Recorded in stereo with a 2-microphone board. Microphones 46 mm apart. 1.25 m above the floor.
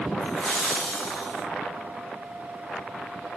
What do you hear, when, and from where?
0.2 s laughter: 35° left (ahead or behind), 5.5 m; by 1.4 s 30° left (ahead or behind), 4.5 m